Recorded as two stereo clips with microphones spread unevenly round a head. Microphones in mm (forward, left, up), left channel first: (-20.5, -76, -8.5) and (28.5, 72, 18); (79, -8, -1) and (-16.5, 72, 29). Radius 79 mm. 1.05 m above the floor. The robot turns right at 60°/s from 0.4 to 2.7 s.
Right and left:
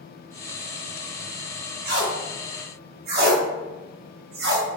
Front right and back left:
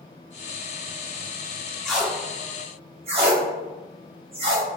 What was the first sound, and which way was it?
Tape being pulled, 50° left.